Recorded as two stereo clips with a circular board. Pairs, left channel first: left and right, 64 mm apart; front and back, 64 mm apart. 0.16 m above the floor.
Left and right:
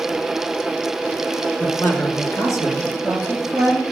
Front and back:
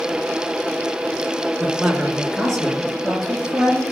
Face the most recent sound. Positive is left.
turn(degrees=95)